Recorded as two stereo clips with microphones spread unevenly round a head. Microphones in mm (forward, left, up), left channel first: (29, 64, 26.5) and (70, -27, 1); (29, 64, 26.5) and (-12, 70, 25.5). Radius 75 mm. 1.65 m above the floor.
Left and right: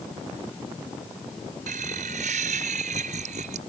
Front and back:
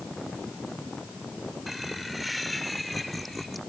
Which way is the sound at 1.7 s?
100° right.